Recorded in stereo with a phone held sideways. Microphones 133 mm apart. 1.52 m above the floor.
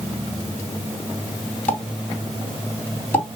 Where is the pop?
15° left (ahead or behind), 3 m.